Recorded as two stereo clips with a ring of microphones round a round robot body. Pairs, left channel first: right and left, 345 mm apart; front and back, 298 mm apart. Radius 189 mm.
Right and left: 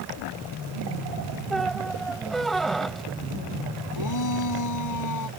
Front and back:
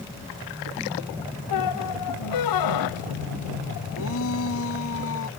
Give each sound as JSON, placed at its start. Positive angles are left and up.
{"t": 1.5, "sound": "a squeak", "azimuth_deg": 0}
{"t": 4.0, "sound": "a shout", "azimuth_deg": -55}